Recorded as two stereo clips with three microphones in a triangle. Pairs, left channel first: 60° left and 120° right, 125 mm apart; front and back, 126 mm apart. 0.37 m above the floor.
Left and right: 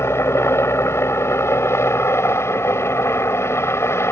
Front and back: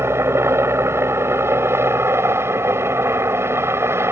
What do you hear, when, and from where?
0.0 s a helicopter: 120° left